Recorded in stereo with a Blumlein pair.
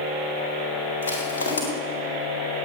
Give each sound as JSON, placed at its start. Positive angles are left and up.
{"t": 1.0, "sound": "crushing", "azimuth_deg": 70, "distance_m": 4.0}